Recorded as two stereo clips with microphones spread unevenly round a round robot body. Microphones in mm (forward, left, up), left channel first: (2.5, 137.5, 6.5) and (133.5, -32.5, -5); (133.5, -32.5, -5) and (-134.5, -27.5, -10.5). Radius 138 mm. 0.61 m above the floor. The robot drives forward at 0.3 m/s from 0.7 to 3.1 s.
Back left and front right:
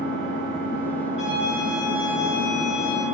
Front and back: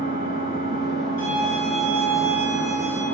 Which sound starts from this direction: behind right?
A violin, at 1.2 s.